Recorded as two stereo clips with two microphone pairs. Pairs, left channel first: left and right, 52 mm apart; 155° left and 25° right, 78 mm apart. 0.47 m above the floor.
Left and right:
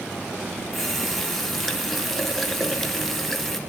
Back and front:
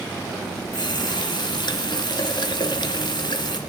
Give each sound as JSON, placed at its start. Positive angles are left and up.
{"t": 0.7, "sound": "a running tap", "azimuth_deg": 175, "distance_m": 3.5}